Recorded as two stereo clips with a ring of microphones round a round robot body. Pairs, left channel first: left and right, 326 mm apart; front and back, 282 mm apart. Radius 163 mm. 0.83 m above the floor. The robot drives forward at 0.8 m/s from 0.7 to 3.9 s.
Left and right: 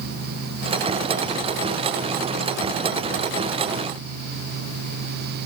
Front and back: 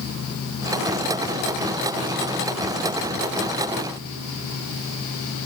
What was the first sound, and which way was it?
Only background noise.